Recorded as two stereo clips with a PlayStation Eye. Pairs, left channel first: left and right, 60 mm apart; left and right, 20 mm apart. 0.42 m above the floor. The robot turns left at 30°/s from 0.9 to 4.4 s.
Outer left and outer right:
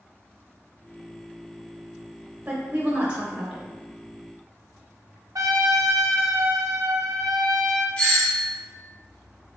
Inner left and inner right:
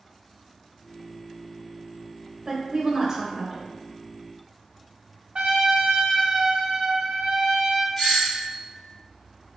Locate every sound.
2.5 s a woman speaking: 25° right (ahead or behind), 0.8 m; by 3.7 s 15° right (ahead or behind), 0.8 m
5.3 s a trumpet: 70° right (ahead or behind), 0.6 m
8.0 s a doorbell: 15° left (ahead or behind), 1.5 m